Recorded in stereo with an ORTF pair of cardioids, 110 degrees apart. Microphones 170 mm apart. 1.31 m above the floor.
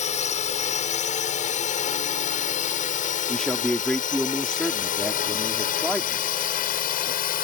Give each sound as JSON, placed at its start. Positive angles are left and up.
{"t": 0.0, "sound": "a drone", "azimuth_deg": 50}
{"t": 3.3, "sound": "a man speaking", "azimuth_deg": 5}